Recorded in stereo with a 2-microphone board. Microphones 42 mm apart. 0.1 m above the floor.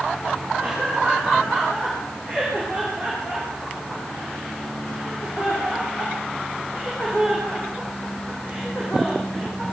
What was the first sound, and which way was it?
Laughter, 25° left (ahead or behind).